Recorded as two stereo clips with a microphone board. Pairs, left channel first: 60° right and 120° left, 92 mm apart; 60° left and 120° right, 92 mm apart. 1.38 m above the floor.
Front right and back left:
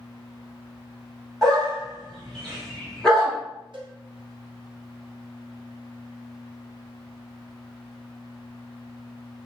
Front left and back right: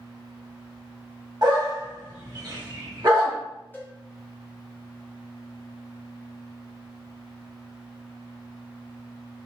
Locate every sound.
1.4 s a dog barking: 145° right, 1.1 m
3.7 s a cowbell: 125° left, 0.7 m